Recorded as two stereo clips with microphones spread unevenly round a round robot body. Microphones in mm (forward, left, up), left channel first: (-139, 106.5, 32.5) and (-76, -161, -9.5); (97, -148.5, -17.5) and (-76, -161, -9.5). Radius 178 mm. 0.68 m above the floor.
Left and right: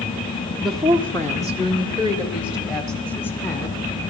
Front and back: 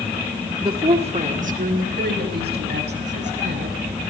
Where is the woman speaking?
135° right, 1.1 m; by 3.8 s 175° left, 3 m.